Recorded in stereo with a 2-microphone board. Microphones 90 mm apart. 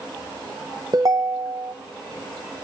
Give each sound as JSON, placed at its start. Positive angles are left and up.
{"t": 0.9, "sound": "a ringtone", "side_deg": -45, "distance_m": 0.9}